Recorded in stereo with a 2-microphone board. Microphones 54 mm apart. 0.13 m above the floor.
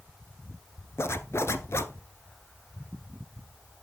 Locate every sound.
1.0 s a zipper: 55° left (ahead or behind), 0.6 m